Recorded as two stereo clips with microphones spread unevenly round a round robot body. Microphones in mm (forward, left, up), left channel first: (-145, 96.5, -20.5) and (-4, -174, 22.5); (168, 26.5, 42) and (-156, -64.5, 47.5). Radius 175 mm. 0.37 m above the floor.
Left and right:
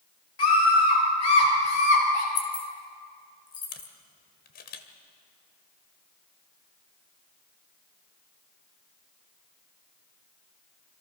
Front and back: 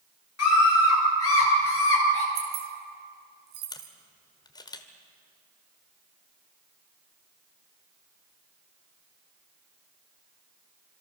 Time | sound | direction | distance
0.4 | a scream | 65° left | 8 m
2.4 | keys jangling | straight behind | 3.5 m
3.7 | a camera shutter | 85° left | 1.7 m